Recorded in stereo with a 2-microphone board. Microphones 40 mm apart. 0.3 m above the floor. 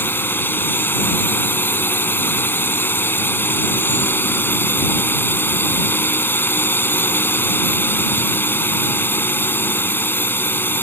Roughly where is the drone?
Left.